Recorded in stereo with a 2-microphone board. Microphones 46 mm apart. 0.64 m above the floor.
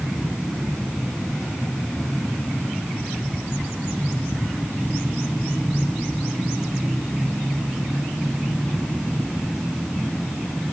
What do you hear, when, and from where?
Only background noise.